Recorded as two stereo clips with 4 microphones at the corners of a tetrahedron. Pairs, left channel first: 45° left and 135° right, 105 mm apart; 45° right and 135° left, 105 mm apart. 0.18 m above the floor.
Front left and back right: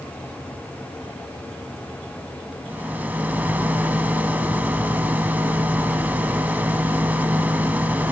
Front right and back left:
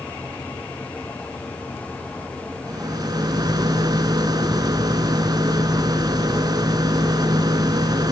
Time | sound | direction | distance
2.7 | a rattle | 155° left | 0.7 m